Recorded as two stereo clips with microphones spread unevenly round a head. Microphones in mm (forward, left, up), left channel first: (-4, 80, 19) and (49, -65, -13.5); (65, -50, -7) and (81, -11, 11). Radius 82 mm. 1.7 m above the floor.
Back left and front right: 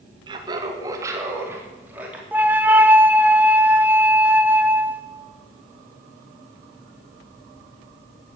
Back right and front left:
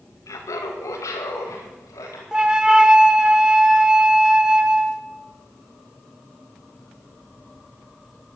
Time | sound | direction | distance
0.3 | laughter | 135° right | 2 m
2.3 | a flute | 15° left | 1.0 m